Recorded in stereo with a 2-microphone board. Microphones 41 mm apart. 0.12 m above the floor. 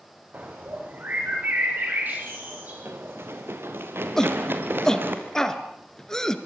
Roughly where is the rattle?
No rattle in this recording.